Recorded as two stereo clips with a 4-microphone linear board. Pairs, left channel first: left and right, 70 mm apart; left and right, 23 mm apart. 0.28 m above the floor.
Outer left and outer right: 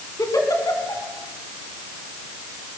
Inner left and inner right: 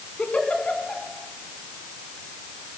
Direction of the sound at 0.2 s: 60° left (ahead or behind).